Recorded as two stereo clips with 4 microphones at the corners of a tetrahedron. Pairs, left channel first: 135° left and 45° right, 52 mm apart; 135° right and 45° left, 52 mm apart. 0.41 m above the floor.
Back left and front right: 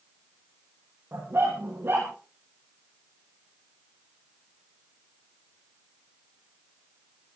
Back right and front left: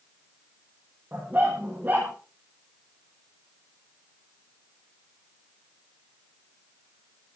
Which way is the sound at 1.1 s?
10° right.